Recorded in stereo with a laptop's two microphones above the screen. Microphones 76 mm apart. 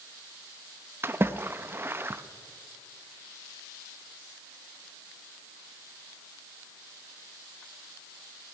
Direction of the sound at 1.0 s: 30° right (ahead or behind).